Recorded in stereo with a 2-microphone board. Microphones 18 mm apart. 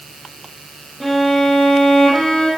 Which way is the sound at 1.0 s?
10° left (ahead or behind).